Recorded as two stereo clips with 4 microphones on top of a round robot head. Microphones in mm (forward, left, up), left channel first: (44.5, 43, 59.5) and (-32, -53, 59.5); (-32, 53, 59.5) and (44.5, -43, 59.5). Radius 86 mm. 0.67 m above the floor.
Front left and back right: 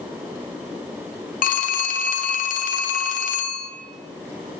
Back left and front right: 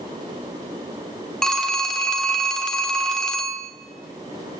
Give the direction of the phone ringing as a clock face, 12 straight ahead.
11 o'clock.